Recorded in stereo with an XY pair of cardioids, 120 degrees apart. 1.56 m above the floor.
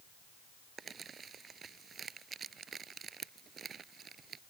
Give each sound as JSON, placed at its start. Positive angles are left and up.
{"t": 0.8, "sound": "crumpling", "azimuth_deg": -40}